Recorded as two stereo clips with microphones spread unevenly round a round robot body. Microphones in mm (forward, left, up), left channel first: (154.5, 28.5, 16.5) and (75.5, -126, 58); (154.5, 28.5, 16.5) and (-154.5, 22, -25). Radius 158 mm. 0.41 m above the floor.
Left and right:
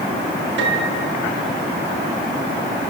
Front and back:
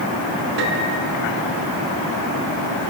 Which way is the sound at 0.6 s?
125° right.